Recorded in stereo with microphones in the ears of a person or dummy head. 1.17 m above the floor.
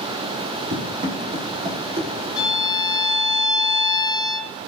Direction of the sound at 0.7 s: 40° right (ahead or behind).